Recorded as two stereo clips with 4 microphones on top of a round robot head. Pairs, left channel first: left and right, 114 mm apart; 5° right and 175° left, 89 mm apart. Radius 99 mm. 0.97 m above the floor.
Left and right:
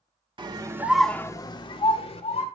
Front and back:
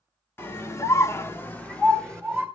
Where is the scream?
60° right, 1.2 m; by 2.5 s 80° left, 2.0 m.